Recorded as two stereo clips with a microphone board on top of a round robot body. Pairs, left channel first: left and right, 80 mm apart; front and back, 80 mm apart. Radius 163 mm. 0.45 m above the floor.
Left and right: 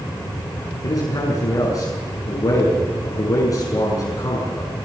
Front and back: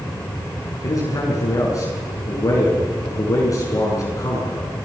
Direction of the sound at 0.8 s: 45° left.